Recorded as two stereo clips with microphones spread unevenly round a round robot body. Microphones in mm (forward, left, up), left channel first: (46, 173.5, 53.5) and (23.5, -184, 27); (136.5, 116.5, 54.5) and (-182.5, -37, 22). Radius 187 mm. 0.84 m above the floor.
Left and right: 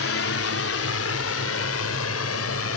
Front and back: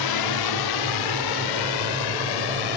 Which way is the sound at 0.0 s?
35° left.